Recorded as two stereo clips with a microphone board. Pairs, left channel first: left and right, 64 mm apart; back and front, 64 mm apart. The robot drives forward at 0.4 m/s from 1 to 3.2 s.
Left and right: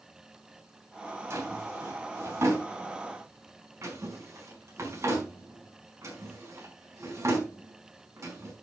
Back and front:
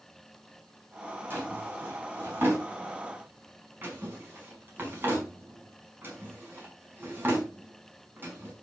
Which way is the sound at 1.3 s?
50° right.